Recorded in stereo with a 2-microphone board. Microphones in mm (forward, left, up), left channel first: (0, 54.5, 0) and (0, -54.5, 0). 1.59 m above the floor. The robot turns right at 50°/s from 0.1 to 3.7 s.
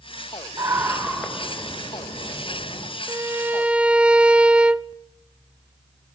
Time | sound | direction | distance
0.6 | a scream | 35° right | 6.5 m
3.1 | a violin | 50° right | 0.5 m